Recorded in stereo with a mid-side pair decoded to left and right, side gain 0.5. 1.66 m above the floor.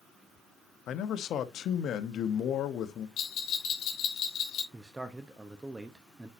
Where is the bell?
65° left, 2.5 m.